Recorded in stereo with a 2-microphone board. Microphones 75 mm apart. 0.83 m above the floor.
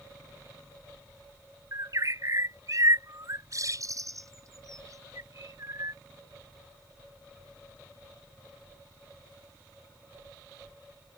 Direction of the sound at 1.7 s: 45° right (ahead or behind).